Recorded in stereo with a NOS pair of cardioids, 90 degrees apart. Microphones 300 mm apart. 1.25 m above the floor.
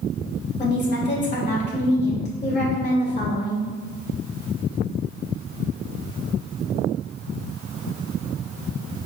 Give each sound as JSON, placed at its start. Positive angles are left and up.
{"t": 0.6, "sound": "a woman speaking", "azimuth_deg": 25, "distance_m": 2.0}